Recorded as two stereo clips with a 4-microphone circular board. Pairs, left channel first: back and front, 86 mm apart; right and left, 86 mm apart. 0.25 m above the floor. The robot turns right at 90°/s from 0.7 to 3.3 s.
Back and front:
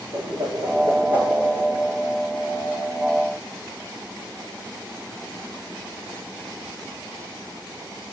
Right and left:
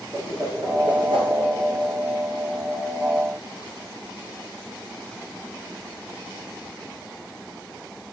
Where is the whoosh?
35° left, 2.5 m; by 1.3 s 90° left, 2.5 m.